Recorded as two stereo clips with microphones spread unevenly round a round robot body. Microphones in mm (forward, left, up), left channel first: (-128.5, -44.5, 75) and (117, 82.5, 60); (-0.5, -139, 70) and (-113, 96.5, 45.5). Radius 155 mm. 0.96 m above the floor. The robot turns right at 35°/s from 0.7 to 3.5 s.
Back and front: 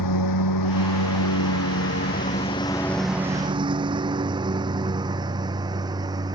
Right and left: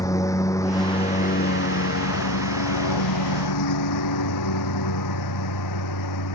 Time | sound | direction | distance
0.0 | a lawn mower | 140° right | ?